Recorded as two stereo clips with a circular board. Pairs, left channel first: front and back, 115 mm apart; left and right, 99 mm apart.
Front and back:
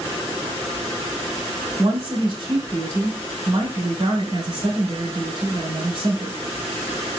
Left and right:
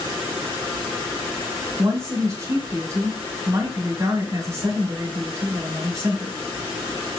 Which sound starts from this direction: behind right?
A woman speaking, at 1.8 s.